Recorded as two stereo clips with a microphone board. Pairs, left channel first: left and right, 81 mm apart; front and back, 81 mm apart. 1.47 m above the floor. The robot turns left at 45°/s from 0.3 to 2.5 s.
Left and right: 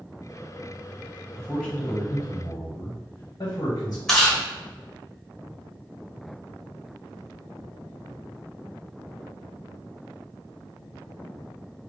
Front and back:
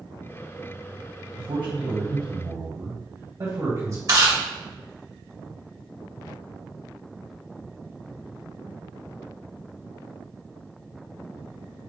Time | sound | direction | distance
1.3 | a man speaking | 170° right | 1.4 m
4.1 | chewing | 170° left | 1.7 m